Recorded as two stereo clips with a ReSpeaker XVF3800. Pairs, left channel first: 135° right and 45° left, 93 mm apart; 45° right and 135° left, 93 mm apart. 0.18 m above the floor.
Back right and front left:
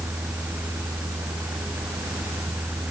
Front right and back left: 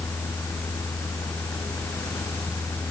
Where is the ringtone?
No ringtone in this recording.